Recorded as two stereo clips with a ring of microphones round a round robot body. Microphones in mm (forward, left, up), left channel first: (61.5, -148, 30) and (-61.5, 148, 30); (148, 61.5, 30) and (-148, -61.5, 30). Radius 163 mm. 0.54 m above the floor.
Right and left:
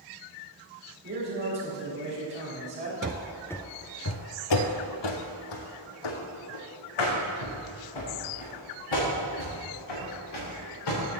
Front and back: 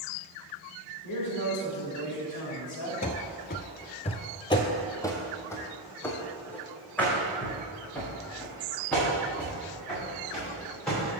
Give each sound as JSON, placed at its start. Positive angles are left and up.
{"t": 1.0, "sound": "a man speaking", "azimuth_deg": 60, "distance_m": 3.0}
{"t": 3.0, "sound": "running footsteps", "azimuth_deg": 75, "distance_m": 0.6}